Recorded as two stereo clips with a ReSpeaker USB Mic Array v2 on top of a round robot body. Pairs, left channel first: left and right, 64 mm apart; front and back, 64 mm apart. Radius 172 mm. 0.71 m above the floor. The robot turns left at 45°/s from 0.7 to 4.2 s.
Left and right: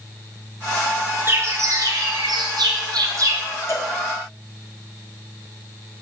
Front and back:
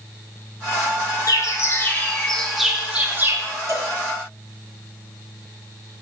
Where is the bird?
35° right, 1.4 m; by 3.4 s 130° right, 1.4 m.